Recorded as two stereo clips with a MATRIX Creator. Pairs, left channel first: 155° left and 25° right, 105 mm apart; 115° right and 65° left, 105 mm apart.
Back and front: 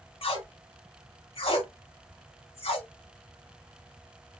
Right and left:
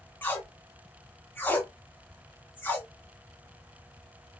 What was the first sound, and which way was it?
Tape being pulled, 175° left.